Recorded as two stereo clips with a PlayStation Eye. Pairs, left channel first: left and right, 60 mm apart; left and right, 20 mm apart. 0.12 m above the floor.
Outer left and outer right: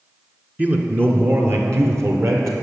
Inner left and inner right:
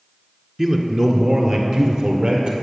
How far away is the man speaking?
About 1.2 m.